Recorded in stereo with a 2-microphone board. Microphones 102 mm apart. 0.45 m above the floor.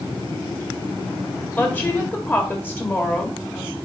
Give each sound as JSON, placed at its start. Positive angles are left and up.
{"t": 1.6, "sound": "a woman speaking", "side_deg": 20, "distance_m": 1.6}